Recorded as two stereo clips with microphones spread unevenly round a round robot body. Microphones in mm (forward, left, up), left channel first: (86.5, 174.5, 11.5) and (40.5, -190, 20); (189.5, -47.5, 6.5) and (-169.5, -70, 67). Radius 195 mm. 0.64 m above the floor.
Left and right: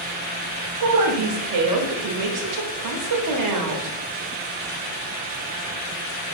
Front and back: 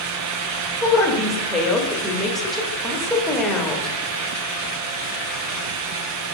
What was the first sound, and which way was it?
A woman speaking, 80° right.